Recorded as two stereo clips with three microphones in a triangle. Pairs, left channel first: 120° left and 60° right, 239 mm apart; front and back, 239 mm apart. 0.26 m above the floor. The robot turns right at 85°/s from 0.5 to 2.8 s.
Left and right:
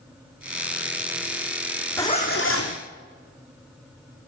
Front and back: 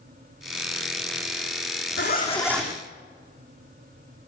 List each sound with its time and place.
2.0 s a zipper: 40° left, 2.5 m; by 2.8 s 105° left, 2.5 m